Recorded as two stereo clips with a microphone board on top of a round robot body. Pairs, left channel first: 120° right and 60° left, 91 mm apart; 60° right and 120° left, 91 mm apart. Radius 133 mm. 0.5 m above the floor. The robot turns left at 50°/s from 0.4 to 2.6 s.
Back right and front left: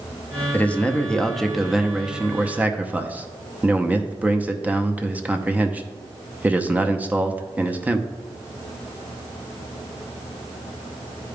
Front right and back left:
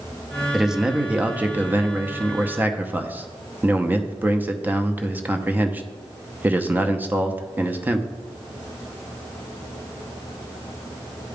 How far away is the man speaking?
About 0.8 m.